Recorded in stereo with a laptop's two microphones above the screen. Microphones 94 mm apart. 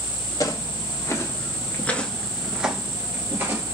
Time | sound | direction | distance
0.4 | footsteps | 40° left (ahead or behind) | 1.4 m